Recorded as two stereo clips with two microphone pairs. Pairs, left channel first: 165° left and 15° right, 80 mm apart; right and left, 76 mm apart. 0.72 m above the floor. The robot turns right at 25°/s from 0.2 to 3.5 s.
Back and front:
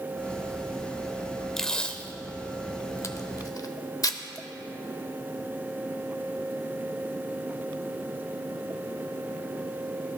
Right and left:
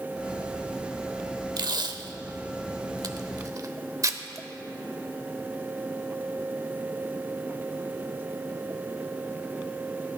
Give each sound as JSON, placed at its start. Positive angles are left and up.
{"t": 1.6, "sound": "tape being pulled", "azimuth_deg": 80, "distance_m": 0.7}